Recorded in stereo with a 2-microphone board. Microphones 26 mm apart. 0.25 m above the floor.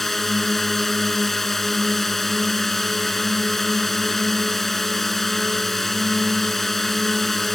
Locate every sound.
0.0 s a drone: 15° left (ahead or behind)